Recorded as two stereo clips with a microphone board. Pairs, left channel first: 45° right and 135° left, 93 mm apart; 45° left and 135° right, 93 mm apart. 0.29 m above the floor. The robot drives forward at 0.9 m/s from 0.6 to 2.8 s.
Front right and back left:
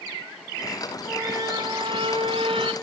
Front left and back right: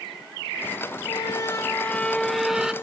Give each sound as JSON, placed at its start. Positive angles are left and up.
{"t": 1.1, "sound": "a squeak", "azimuth_deg": 70, "distance_m": 1.0}